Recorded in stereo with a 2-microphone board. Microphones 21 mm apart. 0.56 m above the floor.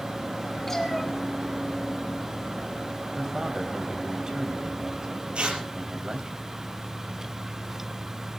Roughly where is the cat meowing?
Centre.